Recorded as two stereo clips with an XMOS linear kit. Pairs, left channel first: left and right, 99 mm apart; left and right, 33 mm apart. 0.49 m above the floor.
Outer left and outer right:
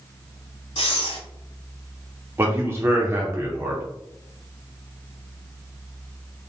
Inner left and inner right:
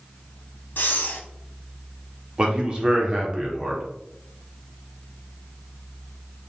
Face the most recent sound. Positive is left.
turn(degrees=-25)  # may be behind; listen again after turning